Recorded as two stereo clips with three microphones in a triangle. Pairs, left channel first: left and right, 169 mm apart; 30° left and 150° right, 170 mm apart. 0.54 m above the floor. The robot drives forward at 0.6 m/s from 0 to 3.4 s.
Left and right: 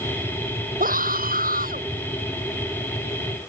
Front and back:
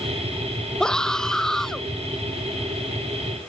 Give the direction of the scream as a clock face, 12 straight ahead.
2 o'clock.